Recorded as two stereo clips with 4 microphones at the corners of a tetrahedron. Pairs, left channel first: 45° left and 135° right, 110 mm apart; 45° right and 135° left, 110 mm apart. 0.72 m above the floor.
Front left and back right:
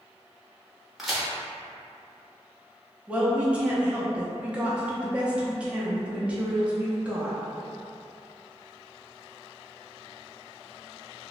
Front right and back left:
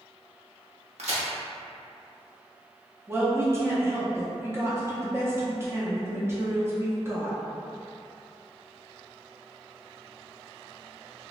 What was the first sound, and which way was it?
A crack, 135° left.